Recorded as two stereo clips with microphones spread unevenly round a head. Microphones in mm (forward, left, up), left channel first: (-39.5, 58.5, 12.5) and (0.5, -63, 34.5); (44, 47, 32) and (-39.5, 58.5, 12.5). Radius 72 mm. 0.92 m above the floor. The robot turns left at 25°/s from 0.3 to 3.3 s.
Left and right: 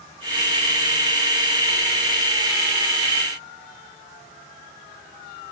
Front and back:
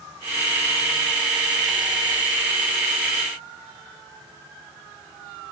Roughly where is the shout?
No shout in this recording.